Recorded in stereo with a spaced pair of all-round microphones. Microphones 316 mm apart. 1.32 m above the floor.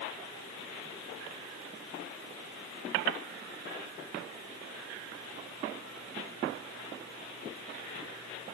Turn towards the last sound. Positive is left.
No sound to turn to.